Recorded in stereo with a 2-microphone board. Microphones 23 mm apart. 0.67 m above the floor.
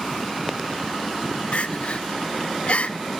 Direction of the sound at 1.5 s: 65° left (ahead or behind).